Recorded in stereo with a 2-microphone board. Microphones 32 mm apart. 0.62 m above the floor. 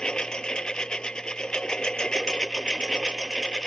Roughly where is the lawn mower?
Left.